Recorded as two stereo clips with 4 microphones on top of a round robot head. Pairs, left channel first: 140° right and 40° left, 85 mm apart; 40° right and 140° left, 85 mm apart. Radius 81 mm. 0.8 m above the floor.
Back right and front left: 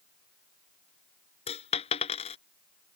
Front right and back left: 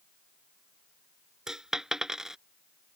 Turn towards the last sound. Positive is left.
turn(degrees=-140)